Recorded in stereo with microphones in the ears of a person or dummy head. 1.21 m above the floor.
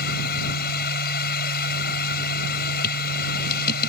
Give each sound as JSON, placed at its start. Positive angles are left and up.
{"t": 0.0, "sound": "a machine running", "side_deg": 55}